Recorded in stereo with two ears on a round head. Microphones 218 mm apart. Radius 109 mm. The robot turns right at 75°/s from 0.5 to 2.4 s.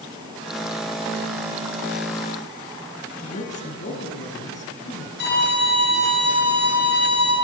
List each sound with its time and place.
3.2 s a man speaking: 30° left (ahead or behind), 5.5 m
5.2 s a violin: 45° left (ahead or behind), 8.5 m